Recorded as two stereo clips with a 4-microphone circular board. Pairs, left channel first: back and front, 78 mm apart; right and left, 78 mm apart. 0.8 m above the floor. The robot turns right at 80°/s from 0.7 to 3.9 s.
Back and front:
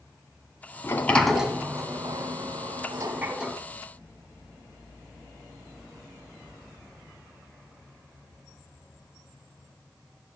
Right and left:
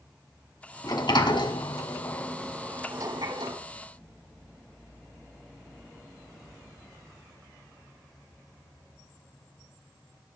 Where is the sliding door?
125° right, 2.0 m; by 3.6 s 90° left, 2.0 m.